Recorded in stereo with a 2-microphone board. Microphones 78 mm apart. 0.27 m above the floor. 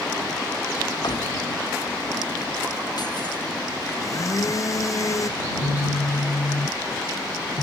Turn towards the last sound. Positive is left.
turn(degrees=75)  # may be behind; listen again after turning